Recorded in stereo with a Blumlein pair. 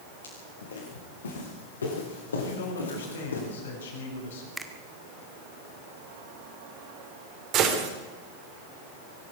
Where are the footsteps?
70° left, 7 m; by 3.4 s 75° left, 9.5 m.